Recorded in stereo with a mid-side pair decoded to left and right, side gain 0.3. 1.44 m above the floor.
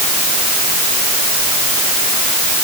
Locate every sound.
Only background noise.